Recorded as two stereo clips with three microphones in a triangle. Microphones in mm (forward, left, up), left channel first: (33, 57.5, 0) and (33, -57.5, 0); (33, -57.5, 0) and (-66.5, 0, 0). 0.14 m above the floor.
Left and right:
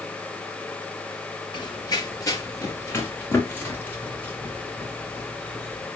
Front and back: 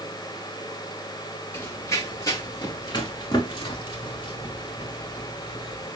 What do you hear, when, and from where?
1.5 s running footsteps: 40° left, 3 m; by 5.9 s 5° left, 7 m